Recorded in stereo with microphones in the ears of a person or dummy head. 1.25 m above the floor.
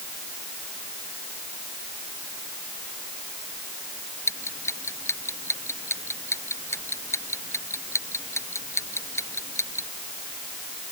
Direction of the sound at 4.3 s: 15° left (ahead or behind).